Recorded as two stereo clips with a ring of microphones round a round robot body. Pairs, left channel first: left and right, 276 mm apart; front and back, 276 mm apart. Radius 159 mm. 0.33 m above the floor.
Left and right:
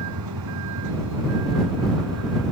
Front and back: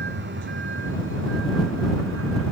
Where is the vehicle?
125° right; by 2.5 s 135° right.